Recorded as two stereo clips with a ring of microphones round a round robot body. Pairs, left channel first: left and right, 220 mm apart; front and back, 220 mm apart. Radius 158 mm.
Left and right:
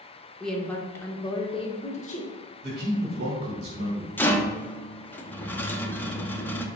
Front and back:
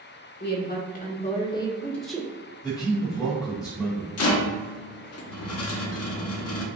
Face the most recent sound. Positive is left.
turn(degrees=10)